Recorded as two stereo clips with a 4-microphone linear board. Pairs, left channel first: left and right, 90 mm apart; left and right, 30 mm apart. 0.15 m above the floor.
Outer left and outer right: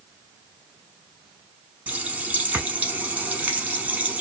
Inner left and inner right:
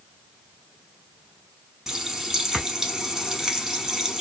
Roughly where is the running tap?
Centre.